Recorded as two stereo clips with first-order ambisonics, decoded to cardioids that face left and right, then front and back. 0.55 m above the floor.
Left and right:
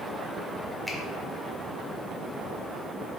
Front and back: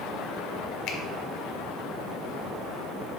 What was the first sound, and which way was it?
A finger snap, straight ahead.